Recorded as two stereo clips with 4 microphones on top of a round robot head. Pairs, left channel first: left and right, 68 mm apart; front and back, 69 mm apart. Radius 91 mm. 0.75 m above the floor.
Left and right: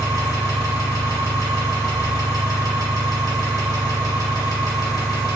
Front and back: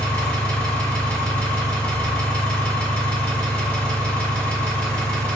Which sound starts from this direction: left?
An engine running, at 0.0 s.